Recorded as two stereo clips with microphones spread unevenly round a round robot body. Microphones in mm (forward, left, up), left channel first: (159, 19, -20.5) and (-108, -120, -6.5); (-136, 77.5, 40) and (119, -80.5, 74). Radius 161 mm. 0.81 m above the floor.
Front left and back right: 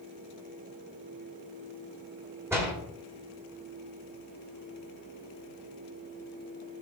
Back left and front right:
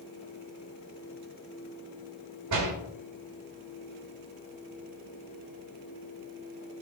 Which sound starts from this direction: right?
A door slam, at 2.5 s.